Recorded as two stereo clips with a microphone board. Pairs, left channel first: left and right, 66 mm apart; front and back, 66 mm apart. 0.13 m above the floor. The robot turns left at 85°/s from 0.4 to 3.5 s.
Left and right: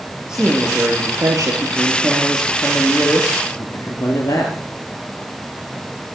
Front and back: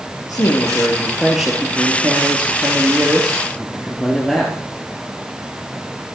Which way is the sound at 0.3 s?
15° right.